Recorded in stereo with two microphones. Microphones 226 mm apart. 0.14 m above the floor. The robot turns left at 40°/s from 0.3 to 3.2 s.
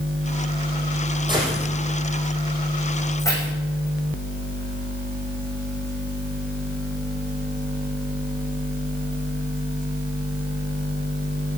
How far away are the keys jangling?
About 6.5 m.